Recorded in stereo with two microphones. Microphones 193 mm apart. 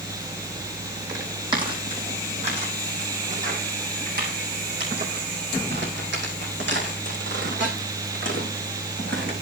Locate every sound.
1.1 s footsteps: 20° right (ahead or behind), 4 m; by 9.3 s 75° right (ahead or behind), 5.5 m